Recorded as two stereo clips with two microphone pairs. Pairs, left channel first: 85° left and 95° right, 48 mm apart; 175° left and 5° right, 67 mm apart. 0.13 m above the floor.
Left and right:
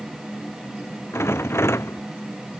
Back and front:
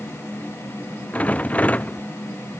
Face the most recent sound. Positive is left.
turn(degrees=105)